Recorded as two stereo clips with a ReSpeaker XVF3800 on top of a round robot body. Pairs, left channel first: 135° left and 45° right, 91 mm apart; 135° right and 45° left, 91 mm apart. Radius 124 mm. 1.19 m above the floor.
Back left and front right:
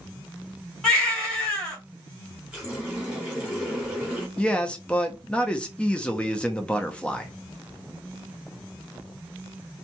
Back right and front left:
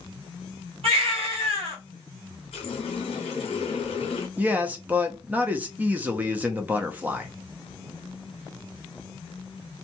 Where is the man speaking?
80° left, 0.6 m.